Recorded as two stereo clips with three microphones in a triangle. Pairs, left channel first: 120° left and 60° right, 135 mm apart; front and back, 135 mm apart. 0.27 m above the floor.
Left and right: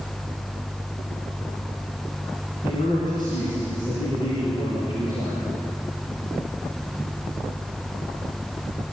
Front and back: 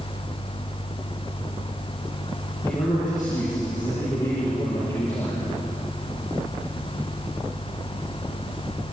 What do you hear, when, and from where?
2.6 s a man speaking: 65° left, 6.5 m